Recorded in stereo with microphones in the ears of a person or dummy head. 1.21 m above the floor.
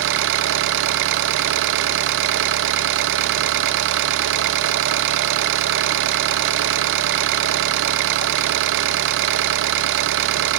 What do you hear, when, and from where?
0.0 s an engine running: 70° right (ahead or behind), 0.8 m